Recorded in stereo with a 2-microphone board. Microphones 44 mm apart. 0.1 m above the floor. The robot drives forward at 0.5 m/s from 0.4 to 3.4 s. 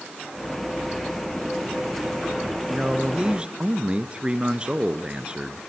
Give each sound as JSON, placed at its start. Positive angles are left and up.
{"t": 2.7, "sound": "a man speaking", "side_deg": -20, "distance_m": 1.2}